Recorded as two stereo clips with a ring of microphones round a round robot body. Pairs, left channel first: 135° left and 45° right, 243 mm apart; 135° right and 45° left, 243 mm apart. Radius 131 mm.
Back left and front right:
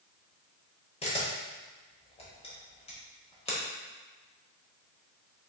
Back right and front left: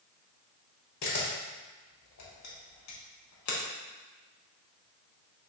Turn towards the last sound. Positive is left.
turn(degrees=-160)